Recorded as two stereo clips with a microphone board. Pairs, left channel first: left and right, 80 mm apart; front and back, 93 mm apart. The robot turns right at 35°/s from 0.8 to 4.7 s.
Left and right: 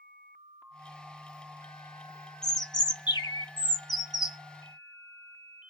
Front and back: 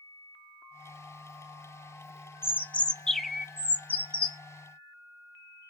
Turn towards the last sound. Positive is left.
turn(degrees=140)